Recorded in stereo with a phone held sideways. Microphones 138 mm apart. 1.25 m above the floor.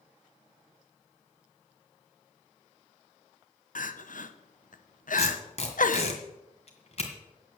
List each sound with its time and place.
3.8 s crying: 70° left (ahead or behind), 0.8 m
5.2 s tape being pulled: 50° left (ahead or behind), 2 m